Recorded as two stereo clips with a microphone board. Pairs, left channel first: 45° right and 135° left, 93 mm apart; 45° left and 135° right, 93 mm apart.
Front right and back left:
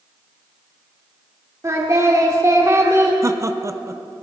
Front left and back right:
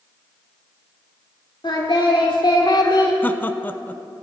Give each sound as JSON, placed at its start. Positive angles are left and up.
{"t": 1.6, "sound": "singing", "azimuth_deg": 80, "distance_m": 1.7}
{"t": 3.2, "sound": "laughter", "azimuth_deg": 100, "distance_m": 0.6}